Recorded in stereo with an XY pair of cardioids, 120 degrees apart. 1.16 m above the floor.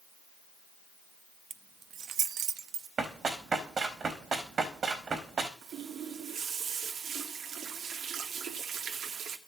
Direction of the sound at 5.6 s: 60° right.